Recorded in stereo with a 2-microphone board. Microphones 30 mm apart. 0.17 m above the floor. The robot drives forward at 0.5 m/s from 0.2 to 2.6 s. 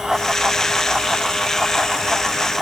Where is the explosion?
I don't hear an explosion.